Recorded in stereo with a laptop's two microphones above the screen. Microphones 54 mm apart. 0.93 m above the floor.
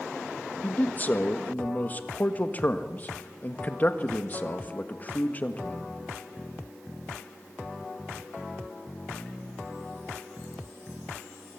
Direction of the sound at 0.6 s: 30° left (ahead or behind).